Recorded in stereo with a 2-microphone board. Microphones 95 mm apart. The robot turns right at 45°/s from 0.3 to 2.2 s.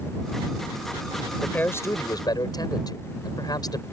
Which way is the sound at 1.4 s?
10° left.